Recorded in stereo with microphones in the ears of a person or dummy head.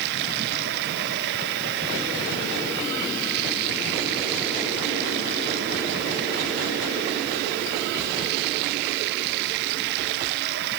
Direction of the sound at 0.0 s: 60° right (ahead or behind).